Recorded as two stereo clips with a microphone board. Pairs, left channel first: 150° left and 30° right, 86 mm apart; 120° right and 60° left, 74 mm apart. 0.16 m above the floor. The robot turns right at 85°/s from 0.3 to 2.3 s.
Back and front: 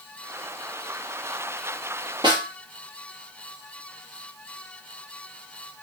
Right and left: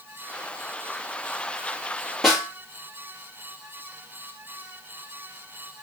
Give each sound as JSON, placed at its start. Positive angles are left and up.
{"t": 2.2, "sound": "a snare drum", "azimuth_deg": -30, "distance_m": 2.5}